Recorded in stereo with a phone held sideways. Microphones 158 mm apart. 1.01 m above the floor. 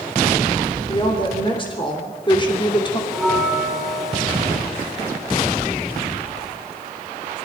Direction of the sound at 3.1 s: 5° right (ahead or behind).